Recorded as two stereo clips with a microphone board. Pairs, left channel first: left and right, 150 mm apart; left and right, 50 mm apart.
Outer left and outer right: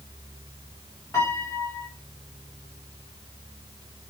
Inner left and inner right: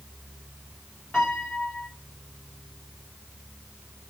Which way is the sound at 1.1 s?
20° left (ahead or behind).